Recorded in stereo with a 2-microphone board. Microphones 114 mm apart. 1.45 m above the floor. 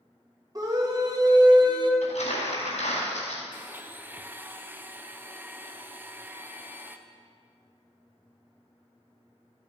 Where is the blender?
15° right (ahead or behind), 0.5 m.